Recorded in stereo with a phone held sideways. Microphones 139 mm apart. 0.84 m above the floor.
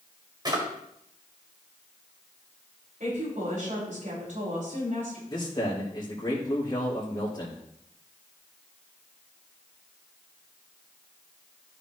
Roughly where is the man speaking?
Left.